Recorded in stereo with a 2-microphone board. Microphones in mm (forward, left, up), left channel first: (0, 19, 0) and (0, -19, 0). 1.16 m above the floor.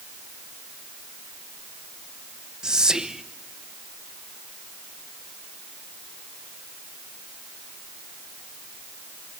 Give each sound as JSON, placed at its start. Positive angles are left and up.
{"t": 2.6, "sound": "whispering", "side_deg": -20, "distance_m": 0.8}